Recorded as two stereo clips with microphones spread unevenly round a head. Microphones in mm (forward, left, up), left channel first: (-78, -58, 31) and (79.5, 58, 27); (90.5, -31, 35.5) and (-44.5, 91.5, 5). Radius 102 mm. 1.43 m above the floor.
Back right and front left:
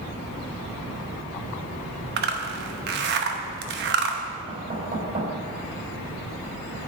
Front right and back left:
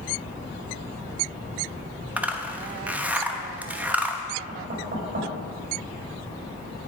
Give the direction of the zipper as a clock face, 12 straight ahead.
10 o'clock.